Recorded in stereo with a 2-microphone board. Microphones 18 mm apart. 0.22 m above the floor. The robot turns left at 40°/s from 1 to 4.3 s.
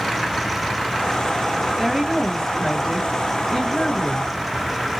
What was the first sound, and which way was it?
A woman speaking, 10° right (ahead or behind).